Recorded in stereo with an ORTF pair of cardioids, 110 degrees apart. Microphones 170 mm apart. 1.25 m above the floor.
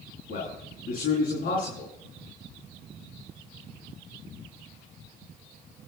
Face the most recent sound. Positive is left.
turn(degrees=55)